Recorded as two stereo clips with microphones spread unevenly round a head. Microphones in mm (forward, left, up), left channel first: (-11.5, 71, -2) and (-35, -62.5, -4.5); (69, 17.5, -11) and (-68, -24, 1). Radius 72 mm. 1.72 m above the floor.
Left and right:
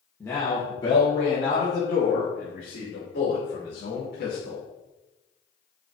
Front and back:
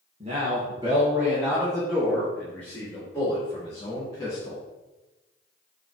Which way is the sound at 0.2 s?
155° left.